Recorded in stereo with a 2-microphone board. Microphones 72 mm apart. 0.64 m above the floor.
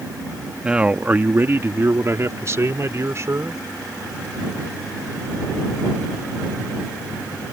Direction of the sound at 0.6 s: 15° right (ahead or behind).